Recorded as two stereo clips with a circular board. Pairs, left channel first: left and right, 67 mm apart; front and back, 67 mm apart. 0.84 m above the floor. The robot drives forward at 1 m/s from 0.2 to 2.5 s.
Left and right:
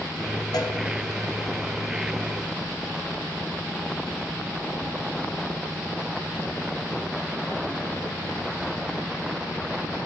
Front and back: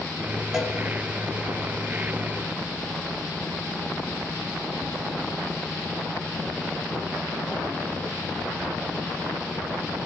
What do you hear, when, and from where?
0.5 s a cowbell: 95° left, 3 m; by 0.8 s 100° left, 3 m